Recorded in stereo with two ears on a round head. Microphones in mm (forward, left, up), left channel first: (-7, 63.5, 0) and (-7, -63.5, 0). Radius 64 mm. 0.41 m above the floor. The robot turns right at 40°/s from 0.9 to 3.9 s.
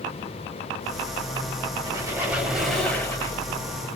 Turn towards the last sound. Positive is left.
turn(degrees=50)